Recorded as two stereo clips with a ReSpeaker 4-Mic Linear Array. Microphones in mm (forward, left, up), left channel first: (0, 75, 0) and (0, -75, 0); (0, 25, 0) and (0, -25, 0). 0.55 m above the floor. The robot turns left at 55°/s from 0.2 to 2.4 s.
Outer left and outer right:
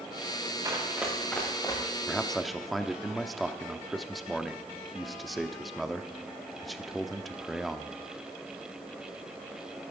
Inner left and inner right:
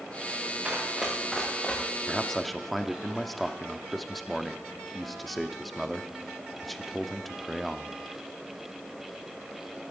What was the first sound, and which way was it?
Running footsteps, 25° right (ahead or behind).